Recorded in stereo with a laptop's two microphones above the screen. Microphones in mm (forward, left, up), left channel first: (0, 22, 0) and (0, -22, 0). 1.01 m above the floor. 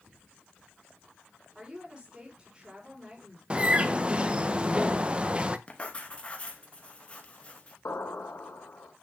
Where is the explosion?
75° left (ahead or behind), 1.7 m.